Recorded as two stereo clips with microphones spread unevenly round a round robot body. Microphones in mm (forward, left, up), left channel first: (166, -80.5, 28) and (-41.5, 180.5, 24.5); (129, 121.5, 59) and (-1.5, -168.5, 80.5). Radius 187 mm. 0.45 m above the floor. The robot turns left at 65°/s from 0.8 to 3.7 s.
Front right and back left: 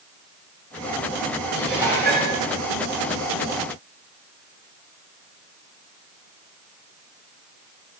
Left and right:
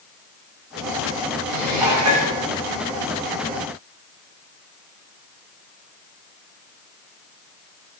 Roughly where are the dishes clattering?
Behind right.